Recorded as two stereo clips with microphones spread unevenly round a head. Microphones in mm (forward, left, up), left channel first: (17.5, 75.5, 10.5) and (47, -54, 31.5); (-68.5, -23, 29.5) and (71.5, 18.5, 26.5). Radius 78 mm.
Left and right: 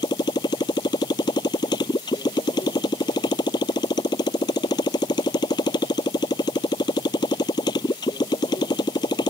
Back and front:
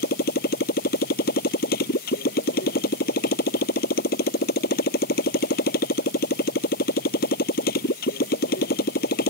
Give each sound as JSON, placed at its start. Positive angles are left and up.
{"t": 0.0, "sound": "a motorcycle", "azimuth_deg": 170}